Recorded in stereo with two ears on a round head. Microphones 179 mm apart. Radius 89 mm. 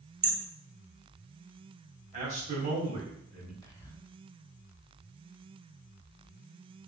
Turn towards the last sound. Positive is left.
turn(degrees=15)  # may be behind; listen again after turning